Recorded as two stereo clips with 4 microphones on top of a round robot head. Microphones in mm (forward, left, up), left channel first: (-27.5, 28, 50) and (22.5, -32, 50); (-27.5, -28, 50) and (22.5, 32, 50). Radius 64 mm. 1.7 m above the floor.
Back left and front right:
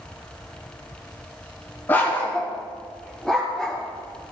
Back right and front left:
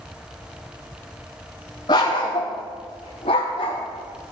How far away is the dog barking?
About 1.7 m.